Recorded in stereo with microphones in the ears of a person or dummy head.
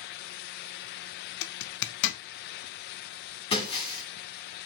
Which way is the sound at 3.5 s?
30° left (ahead or behind).